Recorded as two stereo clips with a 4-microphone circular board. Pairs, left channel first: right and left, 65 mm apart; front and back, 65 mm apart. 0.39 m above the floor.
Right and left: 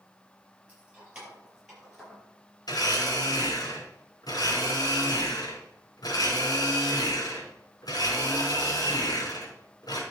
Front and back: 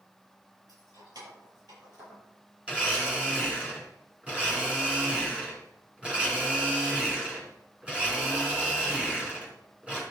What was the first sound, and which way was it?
Keys jangling, 160° left.